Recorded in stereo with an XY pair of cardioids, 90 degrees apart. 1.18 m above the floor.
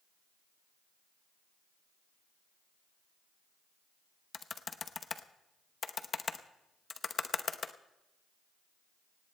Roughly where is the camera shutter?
No camera shutter in this recording.